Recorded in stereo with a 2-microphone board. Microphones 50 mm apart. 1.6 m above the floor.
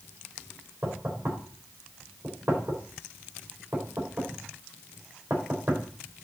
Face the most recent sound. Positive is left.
turn(degrees=-55)  # may be behind; listen again after turning